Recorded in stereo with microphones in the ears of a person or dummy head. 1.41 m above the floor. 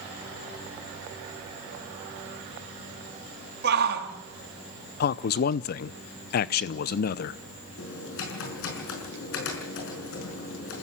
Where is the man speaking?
55° left (ahead or behind), 0.6 m.